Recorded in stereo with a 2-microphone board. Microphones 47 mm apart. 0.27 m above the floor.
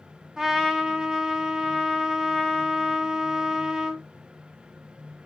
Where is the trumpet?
5° right (ahead or behind), 0.5 m.